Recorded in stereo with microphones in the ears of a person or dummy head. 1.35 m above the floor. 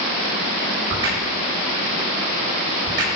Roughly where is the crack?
Right.